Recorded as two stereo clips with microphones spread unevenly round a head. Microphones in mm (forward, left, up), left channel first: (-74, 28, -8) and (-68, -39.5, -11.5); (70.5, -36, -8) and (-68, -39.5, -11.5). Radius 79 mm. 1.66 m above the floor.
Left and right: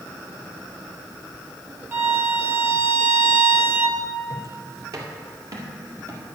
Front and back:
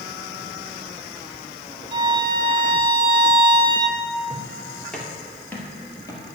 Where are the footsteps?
100° right, 2 m; by 6.2 s 50° right, 2.5 m.